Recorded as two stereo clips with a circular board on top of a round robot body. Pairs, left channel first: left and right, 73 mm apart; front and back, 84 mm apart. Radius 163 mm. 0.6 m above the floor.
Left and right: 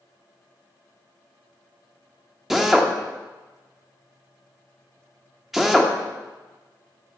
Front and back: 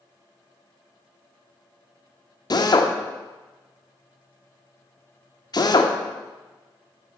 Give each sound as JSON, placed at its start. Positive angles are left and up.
{"t": 2.5, "sound": "a drill", "azimuth_deg": -5, "distance_m": 1.4}